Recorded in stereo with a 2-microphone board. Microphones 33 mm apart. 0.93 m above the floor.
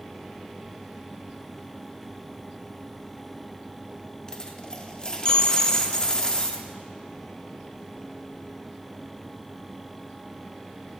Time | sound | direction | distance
4.3 | a dropped coin | 25° left (ahead or behind) | 0.7 m